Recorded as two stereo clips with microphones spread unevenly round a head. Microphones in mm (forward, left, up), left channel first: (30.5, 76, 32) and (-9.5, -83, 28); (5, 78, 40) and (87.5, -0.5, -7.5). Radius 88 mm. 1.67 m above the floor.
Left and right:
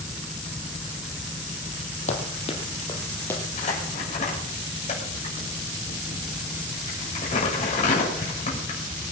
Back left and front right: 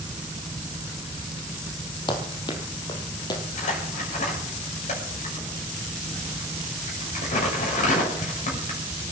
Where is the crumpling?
130° left, 7 m.